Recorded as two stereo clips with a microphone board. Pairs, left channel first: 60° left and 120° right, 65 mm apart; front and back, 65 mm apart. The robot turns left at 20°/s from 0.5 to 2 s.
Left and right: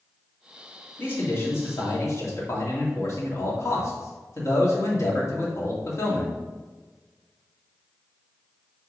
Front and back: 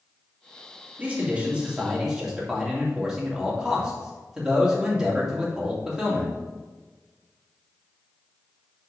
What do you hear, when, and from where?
1.0 s a man speaking: 120° left, 2 m; by 6.3 s 100° left, 2 m